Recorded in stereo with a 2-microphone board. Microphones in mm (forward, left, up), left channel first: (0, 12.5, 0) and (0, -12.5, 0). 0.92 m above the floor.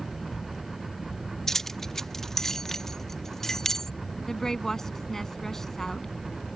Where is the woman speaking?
25° left (ahead or behind).